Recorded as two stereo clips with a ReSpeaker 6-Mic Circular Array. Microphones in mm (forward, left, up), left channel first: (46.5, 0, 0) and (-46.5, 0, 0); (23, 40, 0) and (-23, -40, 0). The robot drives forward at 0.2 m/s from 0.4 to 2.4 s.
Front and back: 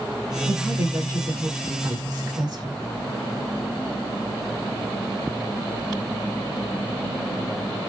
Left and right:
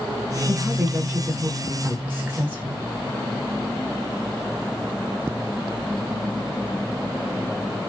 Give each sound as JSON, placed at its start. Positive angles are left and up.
{"t": 0.5, "sound": "a woman speaking", "azimuth_deg": 180, "distance_m": 1.0}